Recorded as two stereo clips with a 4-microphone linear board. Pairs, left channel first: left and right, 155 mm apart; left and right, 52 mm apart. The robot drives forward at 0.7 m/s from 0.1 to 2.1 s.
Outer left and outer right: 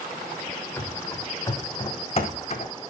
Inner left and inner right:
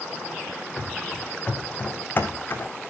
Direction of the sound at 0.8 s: 15° left (ahead or behind).